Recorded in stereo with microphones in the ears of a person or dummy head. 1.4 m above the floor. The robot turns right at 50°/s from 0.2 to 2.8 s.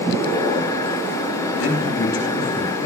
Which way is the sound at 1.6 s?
80° left.